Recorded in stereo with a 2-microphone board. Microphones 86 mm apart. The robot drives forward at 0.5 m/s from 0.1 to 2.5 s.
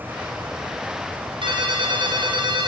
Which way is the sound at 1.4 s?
80° right.